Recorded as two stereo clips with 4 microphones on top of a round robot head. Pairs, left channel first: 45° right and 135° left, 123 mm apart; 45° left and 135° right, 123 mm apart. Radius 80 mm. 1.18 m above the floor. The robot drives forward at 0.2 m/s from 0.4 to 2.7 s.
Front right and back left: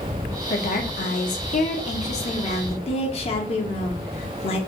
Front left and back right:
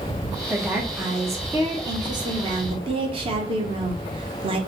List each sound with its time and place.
0.5 s a woman speaking: 55° right, 0.8 m; by 4.6 s 85° right, 0.7 m